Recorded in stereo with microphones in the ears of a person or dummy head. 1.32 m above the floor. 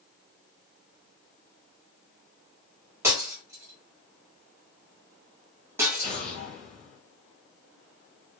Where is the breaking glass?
20° right (ahead or behind), 1.5 m.